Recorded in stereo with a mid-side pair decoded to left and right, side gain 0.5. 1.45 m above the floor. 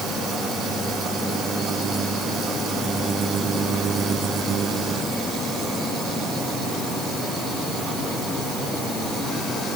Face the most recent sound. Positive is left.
No sound to turn to.